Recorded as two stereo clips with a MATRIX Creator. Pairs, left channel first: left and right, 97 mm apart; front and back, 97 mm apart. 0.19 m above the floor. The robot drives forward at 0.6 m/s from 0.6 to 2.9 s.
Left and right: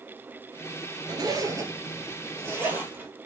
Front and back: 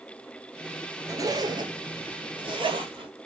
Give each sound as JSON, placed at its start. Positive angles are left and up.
{"t": 1.1, "sound": "a zipper", "azimuth_deg": -130, "distance_m": 0.9}